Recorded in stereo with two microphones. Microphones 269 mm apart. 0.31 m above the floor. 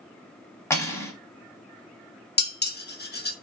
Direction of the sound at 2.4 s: 35° left (ahead or behind).